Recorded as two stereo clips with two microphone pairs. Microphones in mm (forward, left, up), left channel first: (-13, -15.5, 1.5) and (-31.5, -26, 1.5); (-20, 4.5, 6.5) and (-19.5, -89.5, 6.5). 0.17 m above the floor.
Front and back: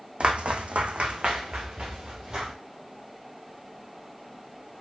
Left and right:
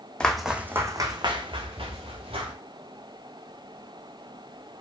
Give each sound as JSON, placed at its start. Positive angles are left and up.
{"t": 0.2, "sound": "footsteps", "azimuth_deg": 175, "distance_m": 0.6}